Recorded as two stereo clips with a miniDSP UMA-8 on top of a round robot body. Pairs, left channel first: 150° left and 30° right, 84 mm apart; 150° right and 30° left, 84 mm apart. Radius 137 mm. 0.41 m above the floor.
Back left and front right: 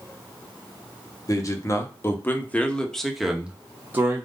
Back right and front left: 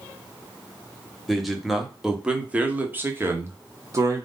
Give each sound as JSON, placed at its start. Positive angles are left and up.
{"t": 1.3, "sound": "a man speaking", "azimuth_deg": 120, "distance_m": 1.4}